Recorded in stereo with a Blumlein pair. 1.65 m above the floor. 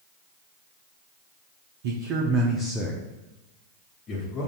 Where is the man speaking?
55° right, 0.7 m; by 4.5 s 35° left, 1.3 m.